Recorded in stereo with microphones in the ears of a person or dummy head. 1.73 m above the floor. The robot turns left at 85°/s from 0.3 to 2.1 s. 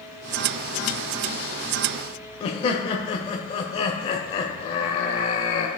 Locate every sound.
2.4 s laughter: 30° left (ahead or behind), 0.7 m